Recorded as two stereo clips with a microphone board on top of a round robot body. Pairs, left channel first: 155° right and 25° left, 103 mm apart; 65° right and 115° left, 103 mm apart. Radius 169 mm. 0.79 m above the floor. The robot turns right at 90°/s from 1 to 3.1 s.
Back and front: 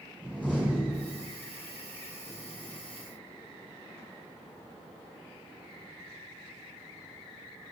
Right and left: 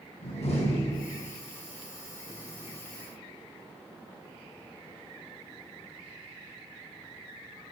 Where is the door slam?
80° right, 4 m; by 1.3 s 50° right, 4 m.